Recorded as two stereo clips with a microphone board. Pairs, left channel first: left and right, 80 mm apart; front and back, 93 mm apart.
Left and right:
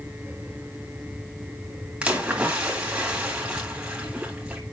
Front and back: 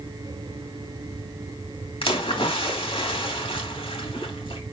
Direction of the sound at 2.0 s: 15° right.